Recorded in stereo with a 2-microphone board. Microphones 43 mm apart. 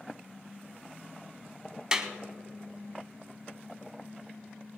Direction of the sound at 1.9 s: 20° right (ahead or behind).